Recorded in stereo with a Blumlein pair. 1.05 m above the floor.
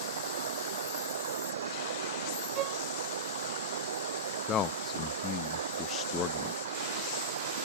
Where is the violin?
35° right.